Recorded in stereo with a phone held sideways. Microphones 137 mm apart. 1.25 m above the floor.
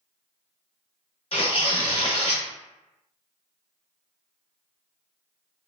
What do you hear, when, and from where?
1.3 s tearing paper: 50° left (ahead or behind), 0.8 m